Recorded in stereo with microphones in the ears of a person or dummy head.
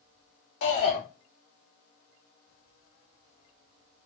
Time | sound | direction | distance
0.6 | a shout | 80° left | 1.4 m